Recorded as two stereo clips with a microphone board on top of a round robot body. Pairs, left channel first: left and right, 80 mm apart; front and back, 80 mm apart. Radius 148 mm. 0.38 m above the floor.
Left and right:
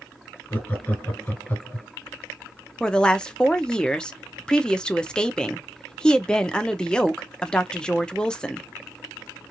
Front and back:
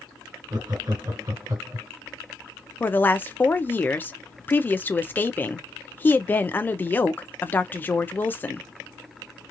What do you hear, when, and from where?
0.5 s laughter: 150° left, 2.0 m
2.8 s a woman speaking: 25° left, 0.8 m